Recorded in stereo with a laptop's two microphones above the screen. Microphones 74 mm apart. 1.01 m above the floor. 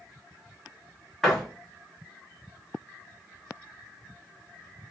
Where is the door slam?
5° left (ahead or behind), 0.7 m.